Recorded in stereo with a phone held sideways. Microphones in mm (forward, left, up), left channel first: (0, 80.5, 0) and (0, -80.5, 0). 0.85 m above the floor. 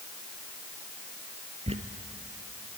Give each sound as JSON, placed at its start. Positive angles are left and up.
{"t": 1.7, "sound": "a squeak", "side_deg": -40, "distance_m": 1.8}